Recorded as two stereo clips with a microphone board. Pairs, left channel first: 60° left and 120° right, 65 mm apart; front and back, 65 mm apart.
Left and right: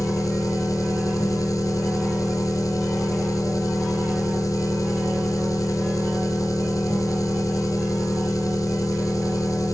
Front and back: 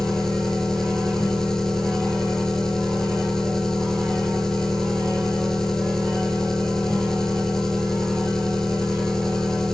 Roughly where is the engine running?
Left.